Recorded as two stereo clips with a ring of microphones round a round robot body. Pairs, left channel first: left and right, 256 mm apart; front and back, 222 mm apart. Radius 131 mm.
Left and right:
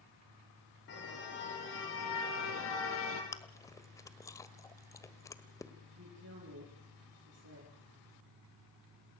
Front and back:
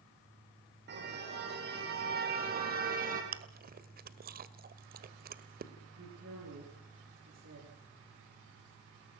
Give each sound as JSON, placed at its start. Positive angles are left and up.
{"t": 0.9, "sound": "a car horn", "azimuth_deg": 140, "distance_m": 7.0}
{"t": 3.3, "sound": "chewing", "azimuth_deg": 165, "distance_m": 1.6}
{"t": 6.0, "sound": "a woman speaking", "azimuth_deg": -135, "distance_m": 9.5}